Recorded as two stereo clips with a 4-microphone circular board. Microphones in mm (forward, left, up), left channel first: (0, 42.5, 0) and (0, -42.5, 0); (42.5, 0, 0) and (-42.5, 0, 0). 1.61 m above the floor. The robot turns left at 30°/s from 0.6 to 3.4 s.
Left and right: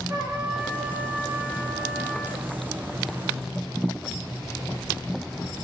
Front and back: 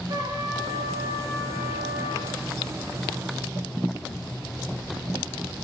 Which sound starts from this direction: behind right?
A trumpet, at 0.1 s.